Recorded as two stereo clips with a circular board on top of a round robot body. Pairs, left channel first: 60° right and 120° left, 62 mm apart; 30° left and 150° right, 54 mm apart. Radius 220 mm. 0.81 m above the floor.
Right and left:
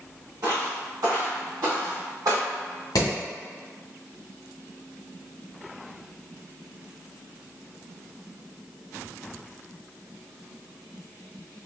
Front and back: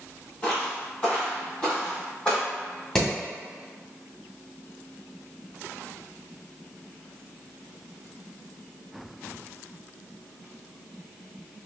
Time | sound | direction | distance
0.4 | footsteps | 95° left | 1.4 m
3.0 | hammering | 50° right | 1.9 m